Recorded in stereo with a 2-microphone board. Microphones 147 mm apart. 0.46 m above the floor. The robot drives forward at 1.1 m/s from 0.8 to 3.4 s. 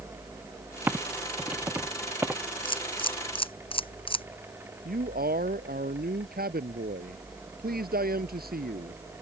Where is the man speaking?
80° right.